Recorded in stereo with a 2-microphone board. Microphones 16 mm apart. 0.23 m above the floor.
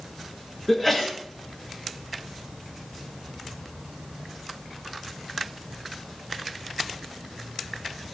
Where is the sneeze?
30° left (ahead or behind), 4 m.